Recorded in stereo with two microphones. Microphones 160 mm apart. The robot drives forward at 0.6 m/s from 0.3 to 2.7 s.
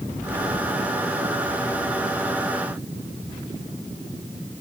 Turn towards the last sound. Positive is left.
No sound to turn to.